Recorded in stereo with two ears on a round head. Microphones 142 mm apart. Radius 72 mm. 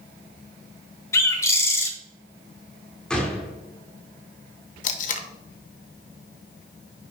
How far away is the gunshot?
About 1.5 m.